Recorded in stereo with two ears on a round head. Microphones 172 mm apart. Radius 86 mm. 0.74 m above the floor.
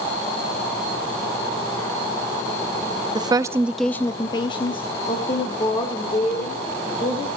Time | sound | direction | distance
3.1 | a woman speaking | 25° right (ahead or behind) | 0.7 m